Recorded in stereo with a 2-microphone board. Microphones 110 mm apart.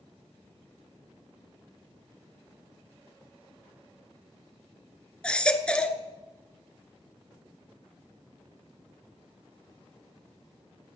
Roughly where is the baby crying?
Centre.